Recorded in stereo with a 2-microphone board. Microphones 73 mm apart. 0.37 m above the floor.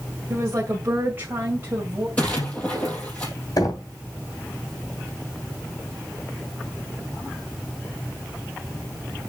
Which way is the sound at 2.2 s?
20° left (ahead or behind).